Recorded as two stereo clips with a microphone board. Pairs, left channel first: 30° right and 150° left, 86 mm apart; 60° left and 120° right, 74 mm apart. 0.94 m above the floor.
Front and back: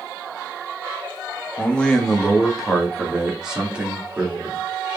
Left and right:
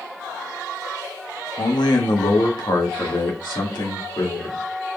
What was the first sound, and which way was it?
A man speaking, 45° left.